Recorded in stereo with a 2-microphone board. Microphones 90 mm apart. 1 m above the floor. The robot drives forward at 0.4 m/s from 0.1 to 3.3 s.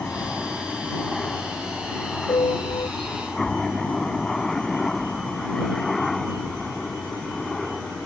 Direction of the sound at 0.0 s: 10° left (ahead or behind).